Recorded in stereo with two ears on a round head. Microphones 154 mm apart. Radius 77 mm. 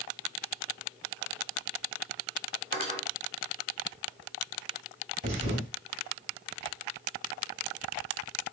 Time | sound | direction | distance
2.7 | cutlery clinking | 55° right (ahead or behind) | 2.5 m
5.2 | a thud | 55° right (ahead or behind) | 2.5 m